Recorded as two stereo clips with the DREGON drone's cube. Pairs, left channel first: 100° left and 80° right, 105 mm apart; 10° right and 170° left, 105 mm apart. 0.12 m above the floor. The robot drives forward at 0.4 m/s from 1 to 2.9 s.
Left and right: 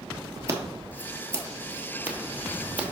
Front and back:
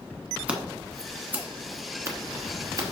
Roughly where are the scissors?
Behind right.